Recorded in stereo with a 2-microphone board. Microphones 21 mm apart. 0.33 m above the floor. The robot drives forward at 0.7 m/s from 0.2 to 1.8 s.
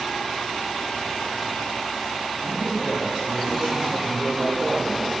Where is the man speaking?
60° right (ahead or behind), 2.5 m.